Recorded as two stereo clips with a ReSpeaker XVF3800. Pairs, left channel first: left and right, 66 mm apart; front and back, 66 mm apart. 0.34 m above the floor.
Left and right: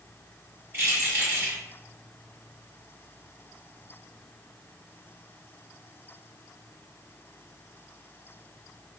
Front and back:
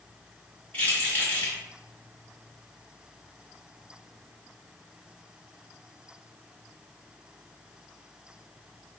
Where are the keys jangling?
55° right, 1.2 m.